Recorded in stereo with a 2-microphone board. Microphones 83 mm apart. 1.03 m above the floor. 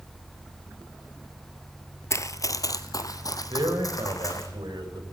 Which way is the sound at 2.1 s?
40° left (ahead or behind).